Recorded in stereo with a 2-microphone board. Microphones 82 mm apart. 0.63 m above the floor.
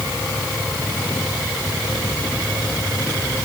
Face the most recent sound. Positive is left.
No sound to turn to.